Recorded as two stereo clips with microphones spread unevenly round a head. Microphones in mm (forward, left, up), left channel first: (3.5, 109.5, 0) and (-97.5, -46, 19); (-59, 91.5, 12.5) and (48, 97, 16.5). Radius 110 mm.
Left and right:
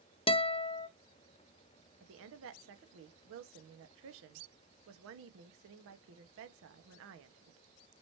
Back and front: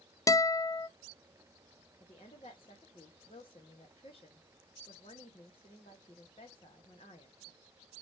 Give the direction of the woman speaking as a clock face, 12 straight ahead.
4 o'clock.